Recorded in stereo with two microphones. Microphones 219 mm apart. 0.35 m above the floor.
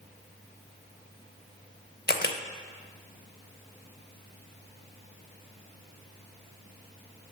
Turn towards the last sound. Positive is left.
turn(degrees=45)  # may be behind; listen again after turning